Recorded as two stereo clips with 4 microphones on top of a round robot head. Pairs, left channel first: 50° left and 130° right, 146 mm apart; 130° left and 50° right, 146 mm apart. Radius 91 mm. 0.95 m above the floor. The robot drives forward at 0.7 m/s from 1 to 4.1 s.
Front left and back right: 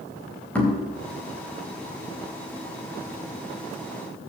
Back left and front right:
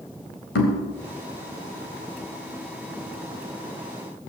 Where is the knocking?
130° left, 3.5 m.